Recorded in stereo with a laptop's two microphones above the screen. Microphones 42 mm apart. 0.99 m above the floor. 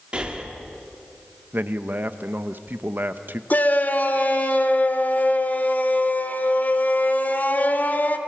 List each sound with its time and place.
0.1 s breathing: 25° right (ahead or behind), 2 m
1.5 s a man speaking: 55° right (ahead or behind), 0.9 m
3.5 s a shout: 45° left (ahead or behind), 3 m